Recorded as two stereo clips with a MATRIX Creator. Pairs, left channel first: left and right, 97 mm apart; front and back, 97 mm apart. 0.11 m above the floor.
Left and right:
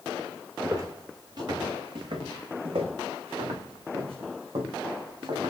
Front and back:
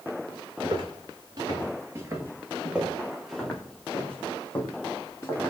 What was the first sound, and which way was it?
Footsteps, 145° right.